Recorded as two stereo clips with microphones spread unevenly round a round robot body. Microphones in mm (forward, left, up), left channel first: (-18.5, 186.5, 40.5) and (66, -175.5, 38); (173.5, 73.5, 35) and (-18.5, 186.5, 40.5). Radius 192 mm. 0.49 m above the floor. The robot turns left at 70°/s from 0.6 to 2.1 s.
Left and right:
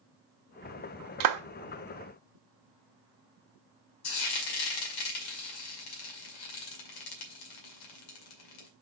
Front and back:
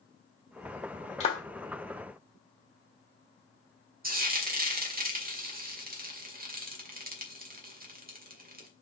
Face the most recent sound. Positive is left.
turn(degrees=105)